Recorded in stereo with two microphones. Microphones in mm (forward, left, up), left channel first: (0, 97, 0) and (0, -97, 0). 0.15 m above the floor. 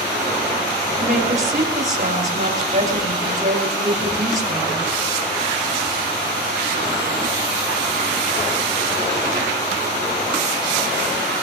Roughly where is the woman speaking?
Right.